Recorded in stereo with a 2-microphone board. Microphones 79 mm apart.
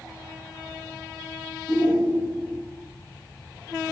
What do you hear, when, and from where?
1.7 s a shout: 15° left (ahead or behind), 4 m